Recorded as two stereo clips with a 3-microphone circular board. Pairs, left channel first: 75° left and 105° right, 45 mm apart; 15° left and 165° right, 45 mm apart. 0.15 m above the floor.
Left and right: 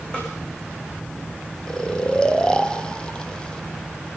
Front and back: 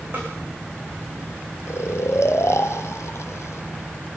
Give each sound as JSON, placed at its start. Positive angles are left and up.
{"t": 0.1, "sound": "a snare drum", "azimuth_deg": 145, "distance_m": 9.5}
{"t": 1.7, "sound": "snoring", "azimuth_deg": 5, "distance_m": 1.4}